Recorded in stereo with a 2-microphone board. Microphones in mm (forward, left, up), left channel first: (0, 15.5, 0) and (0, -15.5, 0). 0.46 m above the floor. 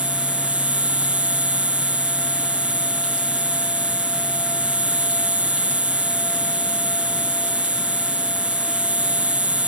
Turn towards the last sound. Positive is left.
turn(degrees=-50)  # may be behind; listen again after turning